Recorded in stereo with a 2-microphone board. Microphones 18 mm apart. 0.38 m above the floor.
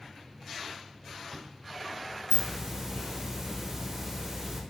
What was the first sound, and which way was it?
A hiss, 25° right (ahead or behind).